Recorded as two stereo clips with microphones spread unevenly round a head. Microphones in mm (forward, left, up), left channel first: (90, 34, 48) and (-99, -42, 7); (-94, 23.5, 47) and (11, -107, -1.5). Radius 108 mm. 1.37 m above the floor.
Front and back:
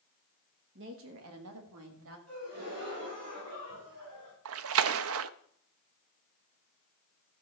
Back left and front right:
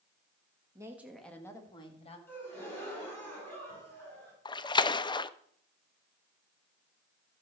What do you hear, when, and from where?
0.8 s a woman speaking: 125° right, 1.9 m; by 2.2 s straight behind, 2.5 m
2.3 s a gasp: 155° right, 6.5 m
4.5 s a splash: 165° right, 0.6 m